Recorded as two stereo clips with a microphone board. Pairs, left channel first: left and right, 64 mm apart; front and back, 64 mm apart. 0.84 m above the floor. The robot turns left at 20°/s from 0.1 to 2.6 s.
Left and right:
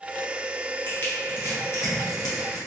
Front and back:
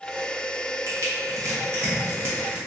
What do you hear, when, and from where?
0.9 s crushing: 150° left, 1.1 m; by 2.6 s 115° left, 1.1 m